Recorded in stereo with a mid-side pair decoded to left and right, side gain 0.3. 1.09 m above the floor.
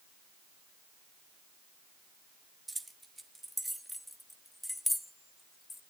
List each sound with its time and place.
2.7 s keys jangling: 20° right, 2 m; by 5.8 s 40° left, 1.3 m